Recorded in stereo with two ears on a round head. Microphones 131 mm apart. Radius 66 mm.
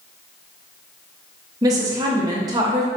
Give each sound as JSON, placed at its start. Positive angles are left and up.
{"t": 1.6, "sound": "a woman speaking", "side_deg": -25, "distance_m": 0.7}